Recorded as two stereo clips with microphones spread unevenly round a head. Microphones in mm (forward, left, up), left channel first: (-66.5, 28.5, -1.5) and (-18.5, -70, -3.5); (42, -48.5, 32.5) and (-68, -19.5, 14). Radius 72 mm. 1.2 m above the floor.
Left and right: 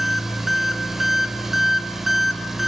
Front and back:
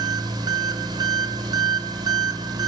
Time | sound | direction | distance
0.0 | an engine running | 150° right | 1.0 m